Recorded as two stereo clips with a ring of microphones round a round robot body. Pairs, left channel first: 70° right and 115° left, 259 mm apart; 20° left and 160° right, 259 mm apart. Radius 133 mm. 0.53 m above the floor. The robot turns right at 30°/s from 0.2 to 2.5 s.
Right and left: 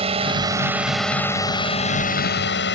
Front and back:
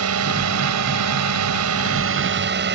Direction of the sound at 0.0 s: Straight behind.